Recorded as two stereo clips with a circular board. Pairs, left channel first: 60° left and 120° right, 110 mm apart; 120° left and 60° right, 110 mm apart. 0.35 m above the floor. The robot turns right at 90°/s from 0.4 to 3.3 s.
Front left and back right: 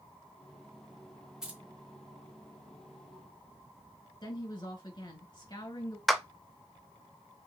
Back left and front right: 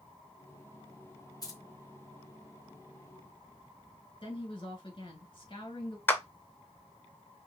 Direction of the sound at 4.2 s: 95° left.